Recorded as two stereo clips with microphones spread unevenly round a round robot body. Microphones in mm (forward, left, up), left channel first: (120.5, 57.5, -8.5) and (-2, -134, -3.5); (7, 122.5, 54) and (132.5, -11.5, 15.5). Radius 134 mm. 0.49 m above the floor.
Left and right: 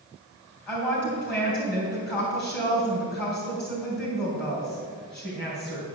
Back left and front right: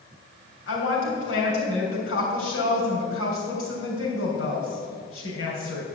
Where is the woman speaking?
145° left, 3 m.